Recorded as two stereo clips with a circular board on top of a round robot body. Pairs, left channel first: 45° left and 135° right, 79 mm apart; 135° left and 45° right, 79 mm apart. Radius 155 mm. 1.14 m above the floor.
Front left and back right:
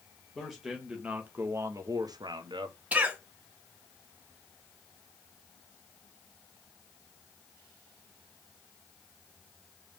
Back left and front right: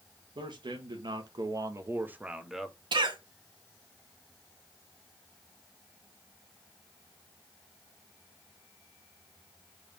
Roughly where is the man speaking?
Ahead right.